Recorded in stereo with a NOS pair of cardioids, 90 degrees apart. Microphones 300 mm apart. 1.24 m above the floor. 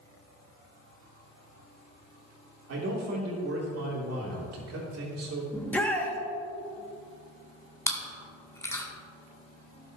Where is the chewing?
10° left, 1.8 m.